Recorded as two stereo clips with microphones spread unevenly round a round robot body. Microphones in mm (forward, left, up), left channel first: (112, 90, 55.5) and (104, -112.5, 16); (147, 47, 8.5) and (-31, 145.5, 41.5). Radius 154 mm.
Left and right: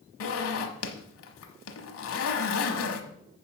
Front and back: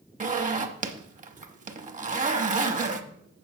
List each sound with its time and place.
0.2 s a zipper: 95° left, 1.1 m